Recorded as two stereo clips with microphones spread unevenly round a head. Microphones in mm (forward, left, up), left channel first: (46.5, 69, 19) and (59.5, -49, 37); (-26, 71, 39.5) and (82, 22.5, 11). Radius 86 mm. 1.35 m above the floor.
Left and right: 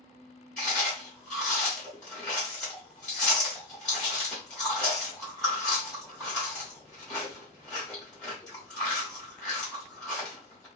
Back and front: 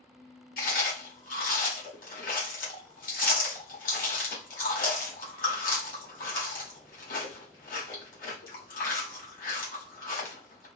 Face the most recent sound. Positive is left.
turn(degrees=175)